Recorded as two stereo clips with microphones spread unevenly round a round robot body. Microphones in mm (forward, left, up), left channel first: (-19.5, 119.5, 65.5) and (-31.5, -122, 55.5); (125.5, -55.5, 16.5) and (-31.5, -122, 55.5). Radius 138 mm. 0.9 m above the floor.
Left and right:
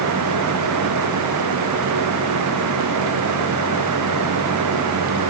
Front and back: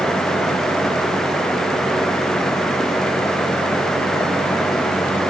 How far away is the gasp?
I don't hear a gasp.